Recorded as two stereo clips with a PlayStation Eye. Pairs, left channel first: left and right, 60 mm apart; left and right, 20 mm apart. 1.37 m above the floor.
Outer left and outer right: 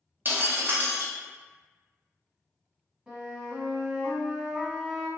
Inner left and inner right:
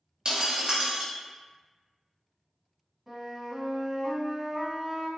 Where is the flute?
15° right (ahead or behind), 1.1 m.